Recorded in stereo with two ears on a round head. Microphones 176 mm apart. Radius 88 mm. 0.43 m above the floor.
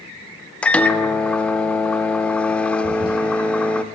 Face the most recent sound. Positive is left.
turn(degrees=-25)  # may be behind; listen again after turning